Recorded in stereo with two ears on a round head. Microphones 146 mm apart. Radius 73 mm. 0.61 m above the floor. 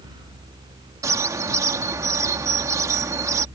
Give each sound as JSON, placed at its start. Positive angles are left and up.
{"t": 1.0, "sound": "a bird", "side_deg": -20}